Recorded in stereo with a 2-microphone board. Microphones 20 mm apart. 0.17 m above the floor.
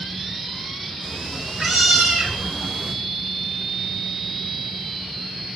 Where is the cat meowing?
45° right (ahead or behind), 5 m; by 2.9 s 70° right (ahead or behind), 3 m.